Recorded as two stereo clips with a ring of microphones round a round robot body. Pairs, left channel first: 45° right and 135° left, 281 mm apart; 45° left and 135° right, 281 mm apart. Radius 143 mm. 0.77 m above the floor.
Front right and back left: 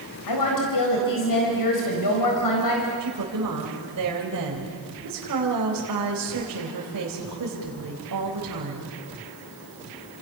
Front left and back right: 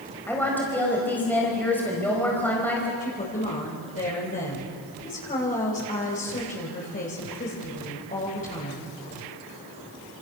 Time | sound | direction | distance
0.3 | a woman speaking | 40° right | 4.5 m
3.0 | a woman speaking | 105° left | 4 m